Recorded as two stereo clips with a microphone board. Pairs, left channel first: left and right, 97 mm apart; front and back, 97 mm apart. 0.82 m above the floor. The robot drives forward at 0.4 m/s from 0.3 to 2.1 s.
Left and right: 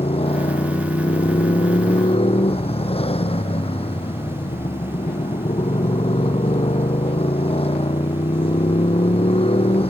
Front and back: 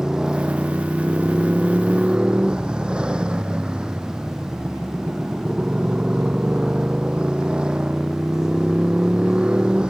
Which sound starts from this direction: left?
A motorcycle, at 0.0 s.